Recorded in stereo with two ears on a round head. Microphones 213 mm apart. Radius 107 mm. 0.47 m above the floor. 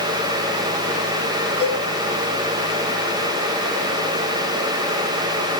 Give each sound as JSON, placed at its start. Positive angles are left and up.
{"t": 1.6, "sound": "a cowbell", "side_deg": -25, "distance_m": 5.5}